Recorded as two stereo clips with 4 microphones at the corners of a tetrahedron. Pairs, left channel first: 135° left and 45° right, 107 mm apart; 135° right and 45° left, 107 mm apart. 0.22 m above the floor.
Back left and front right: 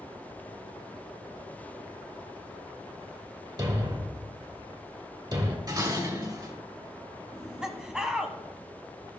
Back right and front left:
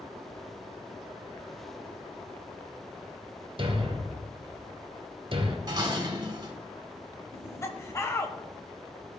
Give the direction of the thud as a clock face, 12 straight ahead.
12 o'clock.